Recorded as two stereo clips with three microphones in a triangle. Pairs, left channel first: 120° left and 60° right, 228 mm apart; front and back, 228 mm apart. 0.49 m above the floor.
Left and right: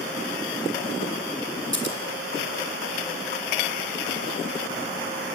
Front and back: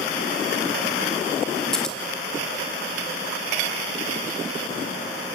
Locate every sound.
1.7 s scissors: 90° left, 3.5 m